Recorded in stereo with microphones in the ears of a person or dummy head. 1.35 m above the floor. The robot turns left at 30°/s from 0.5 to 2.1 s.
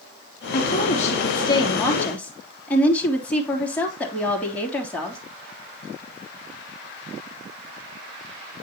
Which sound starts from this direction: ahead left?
A woman speaking, at 0.5 s.